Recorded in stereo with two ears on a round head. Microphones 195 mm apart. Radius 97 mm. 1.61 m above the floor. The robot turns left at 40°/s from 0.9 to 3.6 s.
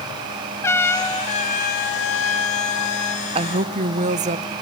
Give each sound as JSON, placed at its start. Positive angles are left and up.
{"t": 0.6, "sound": "a trumpet", "azimuth_deg": 170, "distance_m": 1.1}
{"t": 3.4, "sound": "a woman speaking", "side_deg": -25, "distance_m": 0.7}